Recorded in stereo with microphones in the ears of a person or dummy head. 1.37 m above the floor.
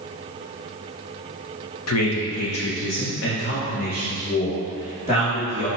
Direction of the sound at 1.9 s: 90° left.